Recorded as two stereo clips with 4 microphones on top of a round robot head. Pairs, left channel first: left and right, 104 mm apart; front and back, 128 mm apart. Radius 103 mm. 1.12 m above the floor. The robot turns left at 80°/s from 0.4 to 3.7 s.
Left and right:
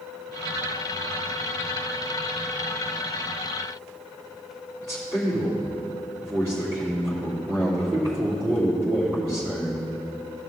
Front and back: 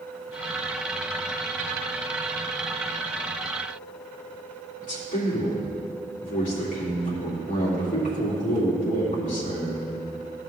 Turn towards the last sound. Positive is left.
turn(degrees=-25)